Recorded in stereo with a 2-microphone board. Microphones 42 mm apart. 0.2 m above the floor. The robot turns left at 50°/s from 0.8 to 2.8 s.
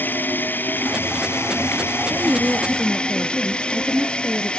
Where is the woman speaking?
125° right; by 4.5 s 160° right.